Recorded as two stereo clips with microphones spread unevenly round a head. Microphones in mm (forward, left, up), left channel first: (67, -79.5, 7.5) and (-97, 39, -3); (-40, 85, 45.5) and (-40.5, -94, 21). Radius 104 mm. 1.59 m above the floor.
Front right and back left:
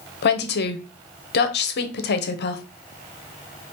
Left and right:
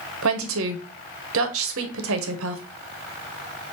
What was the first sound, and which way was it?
A woman speaking, 75° right.